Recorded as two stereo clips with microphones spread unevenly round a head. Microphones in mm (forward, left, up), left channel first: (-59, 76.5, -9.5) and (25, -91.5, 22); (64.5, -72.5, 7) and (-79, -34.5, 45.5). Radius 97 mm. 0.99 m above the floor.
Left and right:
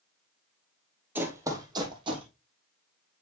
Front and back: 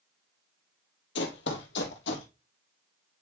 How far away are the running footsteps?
About 1.7 m.